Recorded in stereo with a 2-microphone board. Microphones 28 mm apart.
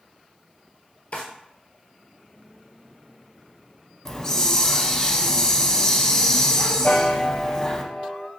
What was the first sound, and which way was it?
A drawer, 70° left (ahead or behind).